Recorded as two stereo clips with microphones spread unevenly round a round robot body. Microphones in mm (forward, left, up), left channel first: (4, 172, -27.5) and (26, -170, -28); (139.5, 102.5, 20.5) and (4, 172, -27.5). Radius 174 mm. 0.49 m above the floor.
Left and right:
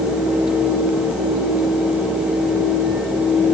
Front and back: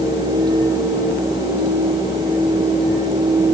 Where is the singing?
No singing in this recording.